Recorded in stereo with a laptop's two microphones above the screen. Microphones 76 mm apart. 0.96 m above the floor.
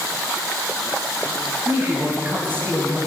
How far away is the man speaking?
About 6 m.